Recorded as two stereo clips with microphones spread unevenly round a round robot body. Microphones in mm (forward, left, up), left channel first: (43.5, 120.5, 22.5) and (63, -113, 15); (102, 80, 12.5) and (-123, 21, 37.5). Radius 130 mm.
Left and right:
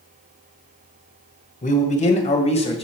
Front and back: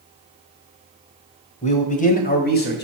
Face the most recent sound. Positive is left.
turn(degrees=35)